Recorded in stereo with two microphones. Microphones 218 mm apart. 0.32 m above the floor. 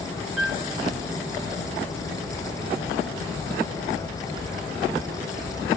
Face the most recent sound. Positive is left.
turn(degrees=0)  # may be behind; listen again after turning